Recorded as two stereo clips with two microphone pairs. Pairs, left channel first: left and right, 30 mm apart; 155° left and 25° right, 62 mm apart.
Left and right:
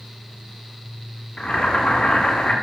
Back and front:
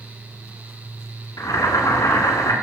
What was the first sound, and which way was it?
Boiling, 140° left.